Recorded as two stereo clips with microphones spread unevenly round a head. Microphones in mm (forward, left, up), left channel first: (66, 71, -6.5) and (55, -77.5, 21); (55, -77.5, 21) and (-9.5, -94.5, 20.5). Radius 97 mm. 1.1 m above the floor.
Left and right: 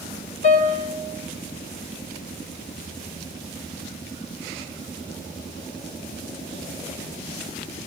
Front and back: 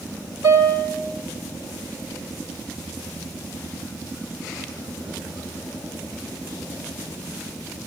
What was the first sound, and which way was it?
A piano, 45° left.